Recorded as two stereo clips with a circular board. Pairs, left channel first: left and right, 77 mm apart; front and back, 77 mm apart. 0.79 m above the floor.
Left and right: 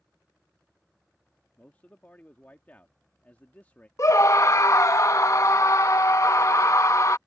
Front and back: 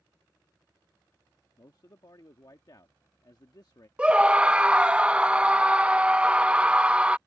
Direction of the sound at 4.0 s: 110° left.